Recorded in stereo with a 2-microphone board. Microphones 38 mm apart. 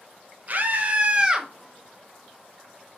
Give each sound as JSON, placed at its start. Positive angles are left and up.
{"t": 0.5, "sound": "a scream", "side_deg": -45, "distance_m": 0.9}